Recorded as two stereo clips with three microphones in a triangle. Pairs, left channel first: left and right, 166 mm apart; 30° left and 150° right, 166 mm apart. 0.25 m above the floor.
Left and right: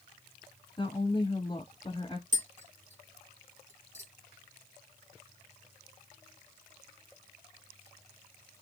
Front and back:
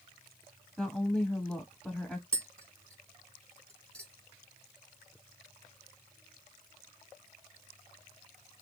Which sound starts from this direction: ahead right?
Tapping, at 2.3 s.